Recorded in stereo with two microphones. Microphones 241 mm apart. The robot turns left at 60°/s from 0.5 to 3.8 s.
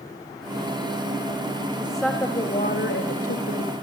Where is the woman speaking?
170° right, 2.5 m; by 3.7 s 75° left, 2.5 m.